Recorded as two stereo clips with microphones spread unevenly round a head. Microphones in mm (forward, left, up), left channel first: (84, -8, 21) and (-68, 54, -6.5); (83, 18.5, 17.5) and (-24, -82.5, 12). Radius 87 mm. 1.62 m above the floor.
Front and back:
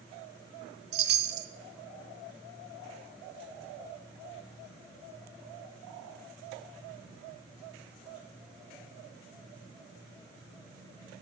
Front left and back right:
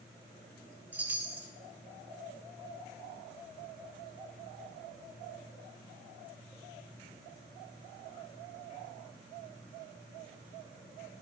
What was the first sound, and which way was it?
A chime, 140° left.